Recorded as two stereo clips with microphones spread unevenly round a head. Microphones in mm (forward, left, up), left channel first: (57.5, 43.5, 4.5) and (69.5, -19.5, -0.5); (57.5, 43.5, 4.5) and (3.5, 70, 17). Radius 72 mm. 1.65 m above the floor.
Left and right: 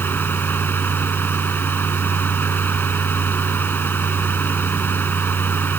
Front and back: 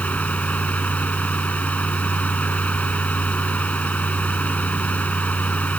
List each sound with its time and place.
0.0 s a fan: 40° left